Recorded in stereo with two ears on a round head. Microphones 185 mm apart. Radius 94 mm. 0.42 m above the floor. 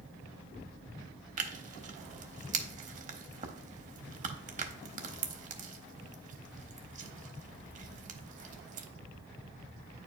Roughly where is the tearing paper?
Right.